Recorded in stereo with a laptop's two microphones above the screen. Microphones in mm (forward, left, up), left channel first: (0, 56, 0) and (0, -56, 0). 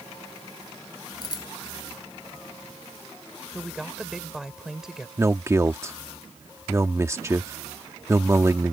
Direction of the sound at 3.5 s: 5° right (ahead or behind).